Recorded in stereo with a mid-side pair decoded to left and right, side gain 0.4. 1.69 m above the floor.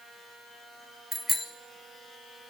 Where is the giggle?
I don't hear a giggle.